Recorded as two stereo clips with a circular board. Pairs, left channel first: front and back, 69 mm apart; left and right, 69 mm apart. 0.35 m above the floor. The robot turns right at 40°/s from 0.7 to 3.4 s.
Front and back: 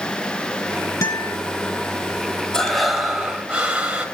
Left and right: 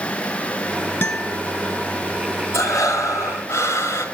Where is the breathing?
75° left, 1.9 m; by 4.1 s 110° left, 1.9 m.